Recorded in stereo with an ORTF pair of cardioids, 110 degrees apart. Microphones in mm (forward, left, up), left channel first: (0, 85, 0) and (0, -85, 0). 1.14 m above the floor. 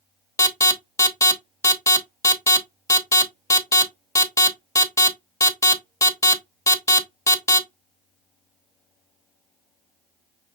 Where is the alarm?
15° left, 1.0 m.